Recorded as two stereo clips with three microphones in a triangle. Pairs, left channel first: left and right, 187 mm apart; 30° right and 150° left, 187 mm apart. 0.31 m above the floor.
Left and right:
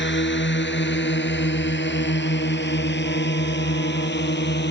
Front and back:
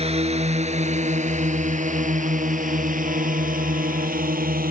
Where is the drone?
95° left; by 4.7 s 110° left.